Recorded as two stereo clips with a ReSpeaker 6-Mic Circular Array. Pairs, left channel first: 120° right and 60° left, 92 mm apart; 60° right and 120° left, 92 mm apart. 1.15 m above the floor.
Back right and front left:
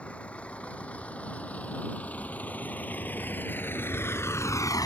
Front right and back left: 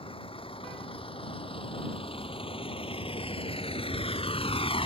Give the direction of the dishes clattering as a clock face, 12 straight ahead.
I don't hear dishes clattering.